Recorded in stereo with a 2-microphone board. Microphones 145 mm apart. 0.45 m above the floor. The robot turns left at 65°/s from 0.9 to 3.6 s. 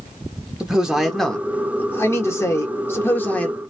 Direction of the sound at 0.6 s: 5° right (ahead or behind).